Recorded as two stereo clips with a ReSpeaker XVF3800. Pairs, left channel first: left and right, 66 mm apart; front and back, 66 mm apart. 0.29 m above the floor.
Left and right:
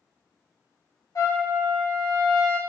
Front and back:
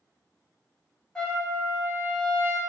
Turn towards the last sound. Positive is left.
turn(degrees=75)